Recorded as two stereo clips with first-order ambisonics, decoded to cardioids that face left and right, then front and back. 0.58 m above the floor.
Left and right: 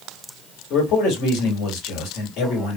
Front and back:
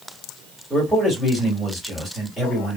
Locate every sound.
0.7 s a man speaking: 95° left, 2.5 m